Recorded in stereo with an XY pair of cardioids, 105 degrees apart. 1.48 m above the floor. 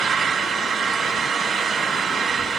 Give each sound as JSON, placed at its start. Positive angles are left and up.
{"t": 0.0, "sound": "an engine running", "azimuth_deg": -55, "distance_m": 3.0}